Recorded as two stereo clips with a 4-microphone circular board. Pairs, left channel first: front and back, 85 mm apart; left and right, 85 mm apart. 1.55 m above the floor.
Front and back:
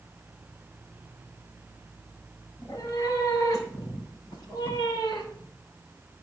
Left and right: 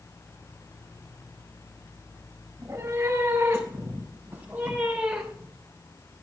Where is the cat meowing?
45° right, 4 m; by 5.5 s 5° right, 3 m.